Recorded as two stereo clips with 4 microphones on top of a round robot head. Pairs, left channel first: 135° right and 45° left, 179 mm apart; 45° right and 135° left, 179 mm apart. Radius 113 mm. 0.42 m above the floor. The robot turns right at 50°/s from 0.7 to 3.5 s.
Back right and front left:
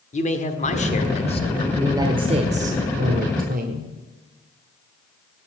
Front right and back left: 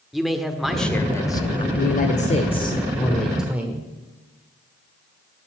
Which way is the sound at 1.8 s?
30° right.